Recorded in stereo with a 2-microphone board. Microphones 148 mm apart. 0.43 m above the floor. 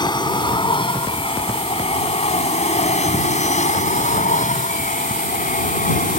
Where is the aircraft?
30° left (ahead or behind); by 6.2 s 70° left (ahead or behind).